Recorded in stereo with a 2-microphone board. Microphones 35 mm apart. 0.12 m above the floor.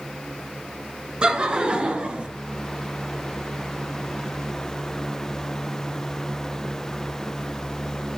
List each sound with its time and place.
1.2 s laughter: 25° right (ahead or behind), 1.4 m; by 2.3 s 35° right (ahead or behind), 1.8 m